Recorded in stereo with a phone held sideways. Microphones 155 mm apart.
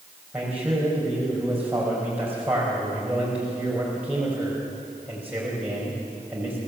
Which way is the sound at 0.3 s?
10° right (ahead or behind).